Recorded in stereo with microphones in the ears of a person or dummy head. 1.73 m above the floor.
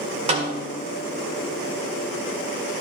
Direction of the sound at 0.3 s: 35° right (ahead or behind).